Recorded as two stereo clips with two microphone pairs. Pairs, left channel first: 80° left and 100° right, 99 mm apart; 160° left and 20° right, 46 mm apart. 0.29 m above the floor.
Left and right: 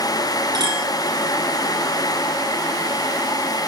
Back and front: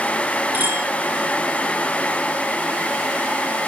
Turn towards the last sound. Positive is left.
turn(degrees=-50)